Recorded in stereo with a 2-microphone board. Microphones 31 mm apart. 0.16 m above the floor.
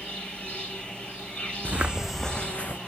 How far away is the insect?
About 4.5 m.